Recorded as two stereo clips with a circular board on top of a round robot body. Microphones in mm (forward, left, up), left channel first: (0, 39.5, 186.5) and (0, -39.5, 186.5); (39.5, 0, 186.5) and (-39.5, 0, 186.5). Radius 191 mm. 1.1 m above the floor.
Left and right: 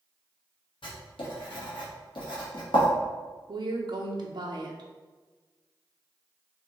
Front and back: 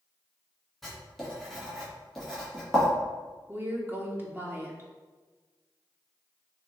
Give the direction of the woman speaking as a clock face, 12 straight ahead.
4 o'clock.